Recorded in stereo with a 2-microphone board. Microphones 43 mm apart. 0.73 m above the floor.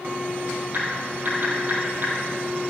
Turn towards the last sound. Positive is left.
turn(degrees=-50)  # may be behind; listen again after turning